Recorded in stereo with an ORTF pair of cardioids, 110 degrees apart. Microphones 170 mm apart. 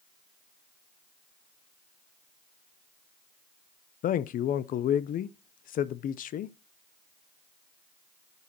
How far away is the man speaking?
About 0.6 m.